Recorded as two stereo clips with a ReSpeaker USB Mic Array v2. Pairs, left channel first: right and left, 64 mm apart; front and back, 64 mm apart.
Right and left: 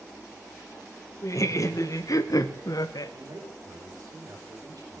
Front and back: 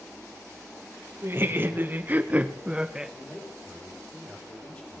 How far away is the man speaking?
About 4.5 m.